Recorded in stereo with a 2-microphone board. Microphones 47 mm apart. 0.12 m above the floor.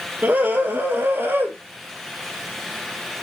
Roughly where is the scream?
Right.